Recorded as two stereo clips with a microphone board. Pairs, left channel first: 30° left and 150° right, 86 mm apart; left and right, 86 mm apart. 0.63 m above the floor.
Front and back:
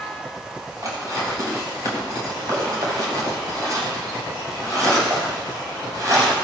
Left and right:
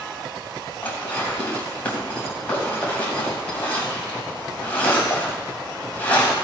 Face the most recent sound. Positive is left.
turn(degrees=165)